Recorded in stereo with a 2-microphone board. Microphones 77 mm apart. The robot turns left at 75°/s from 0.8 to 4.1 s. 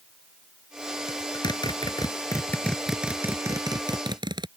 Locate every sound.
1.1 s a zipper: 45° left (ahead or behind); by 4.5 s 85° right